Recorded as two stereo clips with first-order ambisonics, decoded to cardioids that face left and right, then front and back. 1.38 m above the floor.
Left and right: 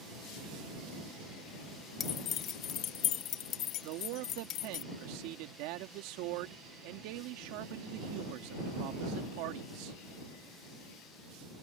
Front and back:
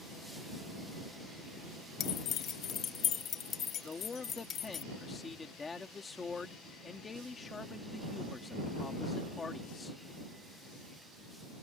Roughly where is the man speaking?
Right.